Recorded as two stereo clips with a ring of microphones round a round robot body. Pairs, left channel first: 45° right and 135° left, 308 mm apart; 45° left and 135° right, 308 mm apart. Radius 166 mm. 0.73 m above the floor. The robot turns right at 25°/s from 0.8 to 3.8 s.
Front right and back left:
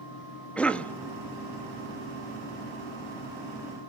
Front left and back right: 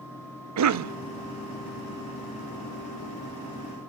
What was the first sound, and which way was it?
A cough, 130° right.